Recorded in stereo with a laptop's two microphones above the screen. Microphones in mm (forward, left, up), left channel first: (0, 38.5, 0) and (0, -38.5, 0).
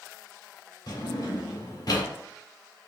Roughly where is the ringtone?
No ringtone in this recording.